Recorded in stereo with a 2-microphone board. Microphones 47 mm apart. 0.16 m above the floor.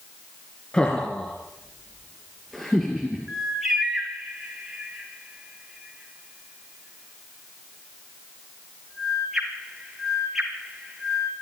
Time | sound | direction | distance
0.7 | laughter | 20° left (ahead or behind) | 2.5 m
3.3 | a bird | 5° right (ahead or behind) | 3 m